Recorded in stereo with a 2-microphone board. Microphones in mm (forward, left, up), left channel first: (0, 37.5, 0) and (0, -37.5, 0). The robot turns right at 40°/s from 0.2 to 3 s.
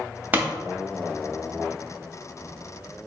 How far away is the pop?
About 0.7 m.